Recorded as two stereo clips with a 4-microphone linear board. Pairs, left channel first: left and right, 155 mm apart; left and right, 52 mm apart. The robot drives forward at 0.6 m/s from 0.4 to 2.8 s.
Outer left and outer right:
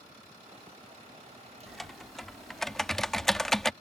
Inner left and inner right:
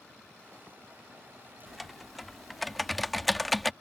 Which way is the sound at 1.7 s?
Centre (ahead or behind).